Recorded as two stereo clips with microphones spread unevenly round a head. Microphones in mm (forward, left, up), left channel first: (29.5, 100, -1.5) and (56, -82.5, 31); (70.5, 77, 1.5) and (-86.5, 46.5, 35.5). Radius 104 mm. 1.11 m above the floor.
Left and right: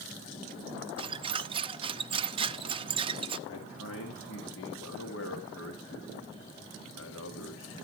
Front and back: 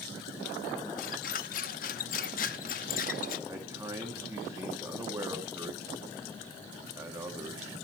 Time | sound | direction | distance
1.0 | a squeak | 40° right | 0.6 m
3.5 | a man speaking | 115° left | 2 m